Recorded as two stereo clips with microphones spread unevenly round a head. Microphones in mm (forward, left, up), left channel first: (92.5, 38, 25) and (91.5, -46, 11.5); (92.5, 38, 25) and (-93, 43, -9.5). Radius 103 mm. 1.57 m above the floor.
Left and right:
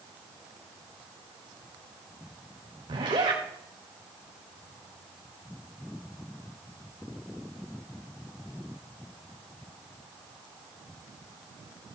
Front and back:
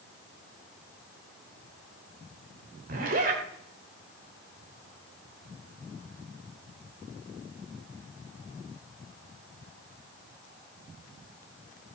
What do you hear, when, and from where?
2.9 s a zipper: 135° right, 1.9 m